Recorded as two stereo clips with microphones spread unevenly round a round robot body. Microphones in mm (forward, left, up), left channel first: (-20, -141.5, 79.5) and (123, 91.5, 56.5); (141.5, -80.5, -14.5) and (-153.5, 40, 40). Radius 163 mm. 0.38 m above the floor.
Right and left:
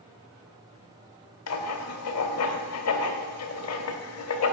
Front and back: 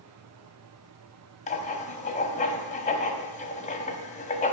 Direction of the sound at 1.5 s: 90° right.